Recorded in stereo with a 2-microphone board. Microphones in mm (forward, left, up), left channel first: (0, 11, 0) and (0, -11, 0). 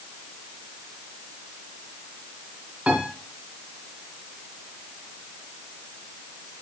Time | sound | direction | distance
2.9 | a piano | 50° right (ahead or behind) | 3 m